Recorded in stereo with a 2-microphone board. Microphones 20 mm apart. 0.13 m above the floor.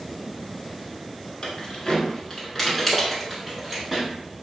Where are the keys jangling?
40° left (ahead or behind), 1.0 m; by 4.1 s 10° right (ahead or behind), 1.4 m.